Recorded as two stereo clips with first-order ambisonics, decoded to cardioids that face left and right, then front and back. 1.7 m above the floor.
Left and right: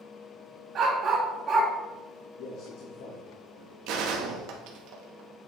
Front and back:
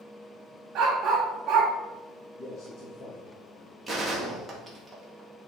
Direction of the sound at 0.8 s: 140° right.